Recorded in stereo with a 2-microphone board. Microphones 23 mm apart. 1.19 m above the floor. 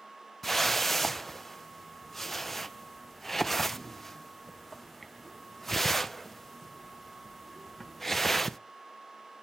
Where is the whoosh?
15° left (ahead or behind), 0.5 m.